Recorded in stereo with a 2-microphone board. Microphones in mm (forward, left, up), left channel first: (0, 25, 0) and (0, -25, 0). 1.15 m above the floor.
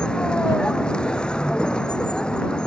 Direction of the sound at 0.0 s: 20° left (ahead or behind).